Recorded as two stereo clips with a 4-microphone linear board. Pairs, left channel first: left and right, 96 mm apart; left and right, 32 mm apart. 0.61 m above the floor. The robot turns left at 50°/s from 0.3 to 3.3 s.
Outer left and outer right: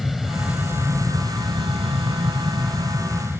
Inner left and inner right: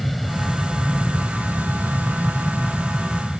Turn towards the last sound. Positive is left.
turn(degrees=-150)